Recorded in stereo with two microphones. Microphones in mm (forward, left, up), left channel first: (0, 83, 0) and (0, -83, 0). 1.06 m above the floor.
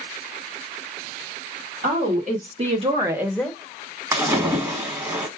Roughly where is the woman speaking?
Right.